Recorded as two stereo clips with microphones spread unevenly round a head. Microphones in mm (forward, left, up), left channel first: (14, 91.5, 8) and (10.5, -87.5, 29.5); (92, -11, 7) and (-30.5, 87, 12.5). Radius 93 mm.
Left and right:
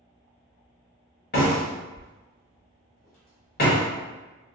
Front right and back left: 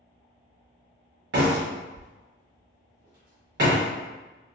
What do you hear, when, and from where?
1.3 s a door slam: 135° left, 1.2 m